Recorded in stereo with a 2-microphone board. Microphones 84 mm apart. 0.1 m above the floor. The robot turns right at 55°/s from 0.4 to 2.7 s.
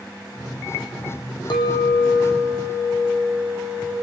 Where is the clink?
110° left, 3.5 m; by 3.9 s 175° left, 3.5 m.